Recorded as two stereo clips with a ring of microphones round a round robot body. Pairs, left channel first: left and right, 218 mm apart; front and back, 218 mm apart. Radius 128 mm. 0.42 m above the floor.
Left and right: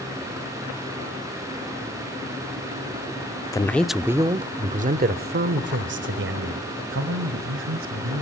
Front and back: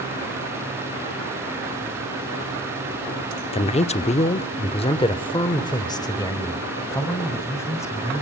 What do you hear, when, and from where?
3.5 s a man speaking: 30° left, 0.9 m; by 8.2 s 75° right, 3 m